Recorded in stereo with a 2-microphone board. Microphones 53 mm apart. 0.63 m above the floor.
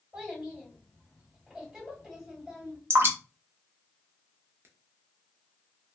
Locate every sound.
0.1 s a child speaking: 15° right (ahead or behind), 2 m
2.9 s dripping: 50° right (ahead or behind), 0.8 m